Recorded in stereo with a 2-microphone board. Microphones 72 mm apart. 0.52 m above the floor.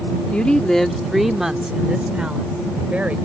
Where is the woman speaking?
15° left (ahead or behind); by 3.2 s 20° right (ahead or behind).